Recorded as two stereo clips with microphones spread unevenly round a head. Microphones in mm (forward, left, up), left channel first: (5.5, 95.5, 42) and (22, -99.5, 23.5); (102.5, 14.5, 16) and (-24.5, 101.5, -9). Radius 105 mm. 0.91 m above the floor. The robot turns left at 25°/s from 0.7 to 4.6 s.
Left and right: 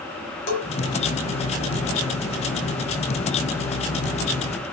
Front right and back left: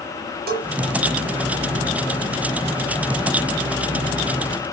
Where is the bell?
125° left, 5 m.